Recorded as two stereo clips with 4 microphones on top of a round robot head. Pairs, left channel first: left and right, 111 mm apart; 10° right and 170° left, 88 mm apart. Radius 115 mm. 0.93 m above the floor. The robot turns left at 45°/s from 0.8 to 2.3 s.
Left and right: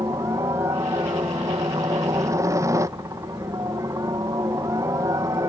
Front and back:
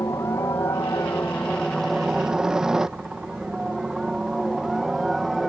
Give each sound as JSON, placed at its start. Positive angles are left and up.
{"t": 0.0, "sound": "a helicopter", "azimuth_deg": -50}